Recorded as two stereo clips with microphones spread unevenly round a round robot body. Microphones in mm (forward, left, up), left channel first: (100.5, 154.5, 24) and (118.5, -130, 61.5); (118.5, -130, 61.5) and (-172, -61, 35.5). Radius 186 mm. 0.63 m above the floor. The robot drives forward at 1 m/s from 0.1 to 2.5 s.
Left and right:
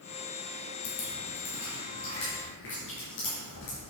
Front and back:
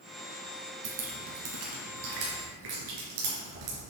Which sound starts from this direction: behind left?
Dripping, at 0.8 s.